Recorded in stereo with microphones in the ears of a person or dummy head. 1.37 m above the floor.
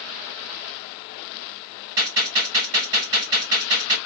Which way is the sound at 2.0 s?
20° right (ahead or behind).